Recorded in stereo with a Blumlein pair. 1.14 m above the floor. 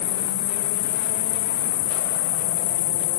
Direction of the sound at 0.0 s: 50° left.